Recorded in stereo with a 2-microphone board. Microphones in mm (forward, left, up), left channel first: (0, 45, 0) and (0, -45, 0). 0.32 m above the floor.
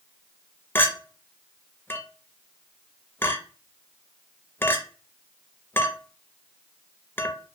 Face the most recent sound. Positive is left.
turn(degrees=25)  # may be behind; listen again after turning